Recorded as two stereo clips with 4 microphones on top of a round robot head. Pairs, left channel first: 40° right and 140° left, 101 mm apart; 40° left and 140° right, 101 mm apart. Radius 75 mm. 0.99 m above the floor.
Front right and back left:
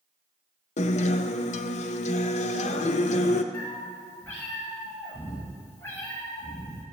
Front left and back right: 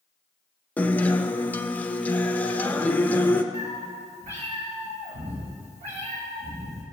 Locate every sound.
0.8 s a guitar: 35° right, 0.7 m
3.5 s a cat meowing: 110° right, 3.5 m